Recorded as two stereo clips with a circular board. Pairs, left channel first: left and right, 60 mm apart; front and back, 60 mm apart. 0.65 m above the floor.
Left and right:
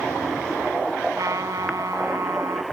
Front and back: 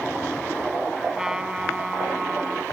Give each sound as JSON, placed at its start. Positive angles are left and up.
{"t": 1.1, "sound": "a trumpet", "azimuth_deg": -100}